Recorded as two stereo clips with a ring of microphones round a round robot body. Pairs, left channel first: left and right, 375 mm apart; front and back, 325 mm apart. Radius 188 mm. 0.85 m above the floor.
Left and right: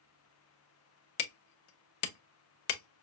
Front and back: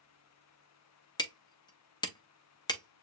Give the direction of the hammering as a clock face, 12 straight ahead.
9 o'clock.